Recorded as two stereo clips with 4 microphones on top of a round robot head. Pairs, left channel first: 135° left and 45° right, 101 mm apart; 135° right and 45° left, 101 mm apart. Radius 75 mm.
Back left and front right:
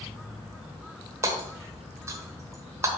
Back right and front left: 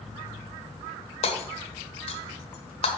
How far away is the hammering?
About 1.1 m.